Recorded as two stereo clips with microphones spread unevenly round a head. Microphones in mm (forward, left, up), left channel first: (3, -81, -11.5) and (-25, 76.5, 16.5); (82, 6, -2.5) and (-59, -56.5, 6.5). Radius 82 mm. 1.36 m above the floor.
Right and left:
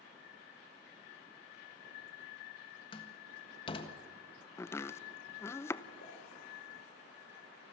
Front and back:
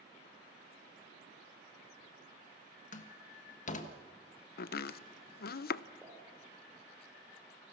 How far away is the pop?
About 5 m.